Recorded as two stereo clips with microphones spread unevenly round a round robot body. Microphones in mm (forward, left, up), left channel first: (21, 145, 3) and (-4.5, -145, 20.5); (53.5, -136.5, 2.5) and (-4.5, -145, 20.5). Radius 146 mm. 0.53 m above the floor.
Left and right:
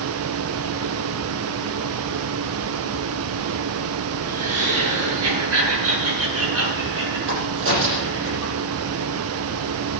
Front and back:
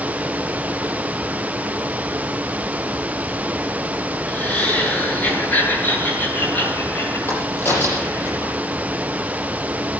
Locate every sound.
4.3 s laughter: 60° right, 6.5 m; by 8.3 s 45° right, 11.5 m
7.3 s a crack: 45° right, 8.5 m